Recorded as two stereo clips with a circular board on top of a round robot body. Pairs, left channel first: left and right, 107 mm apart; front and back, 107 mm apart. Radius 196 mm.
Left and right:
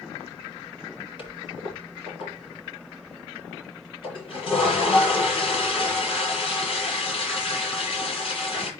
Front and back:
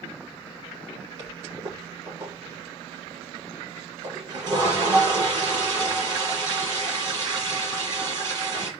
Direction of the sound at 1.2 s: 130° left.